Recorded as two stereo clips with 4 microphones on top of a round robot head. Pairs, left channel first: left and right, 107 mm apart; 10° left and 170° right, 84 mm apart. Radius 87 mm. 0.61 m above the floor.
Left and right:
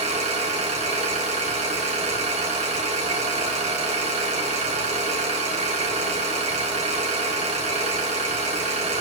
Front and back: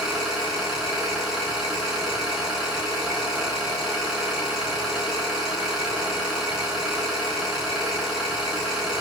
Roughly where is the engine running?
Right.